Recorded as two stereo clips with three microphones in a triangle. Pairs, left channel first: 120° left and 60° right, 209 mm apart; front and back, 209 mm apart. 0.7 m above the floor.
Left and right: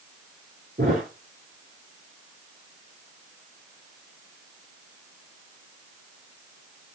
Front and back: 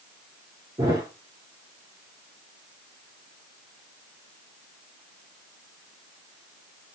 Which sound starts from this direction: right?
A thud, at 0.8 s.